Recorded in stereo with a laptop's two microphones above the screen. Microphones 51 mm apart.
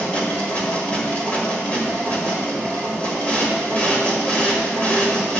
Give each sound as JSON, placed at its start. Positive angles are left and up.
{"t": 0.0, "sound": "a machine running", "side_deg": 30, "distance_m": 1.6}